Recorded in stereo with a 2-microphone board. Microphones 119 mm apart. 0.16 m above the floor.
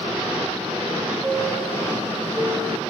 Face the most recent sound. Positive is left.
turn(degrees=-10)  # may be behind; listen again after turning